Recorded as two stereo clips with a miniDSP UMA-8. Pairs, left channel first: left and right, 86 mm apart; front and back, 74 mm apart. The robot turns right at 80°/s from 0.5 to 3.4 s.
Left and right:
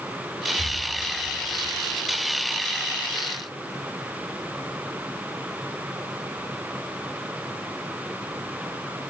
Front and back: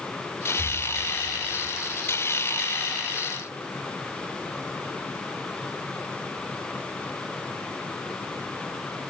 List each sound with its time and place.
0.6 s breathing: 135° right, 4.5 m; by 0.9 s 110° right, 4.5 m